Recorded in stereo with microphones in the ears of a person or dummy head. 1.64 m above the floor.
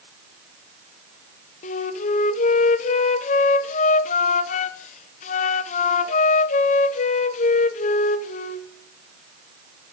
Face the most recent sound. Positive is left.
turn(degrees=40)  # may be behind; listen again after turning